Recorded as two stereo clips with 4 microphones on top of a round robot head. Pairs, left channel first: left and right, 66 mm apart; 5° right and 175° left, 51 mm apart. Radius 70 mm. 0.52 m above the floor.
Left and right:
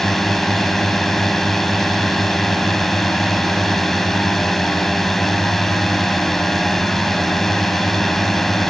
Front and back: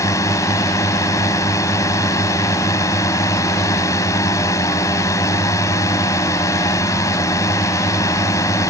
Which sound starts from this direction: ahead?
A drone, at 0.0 s.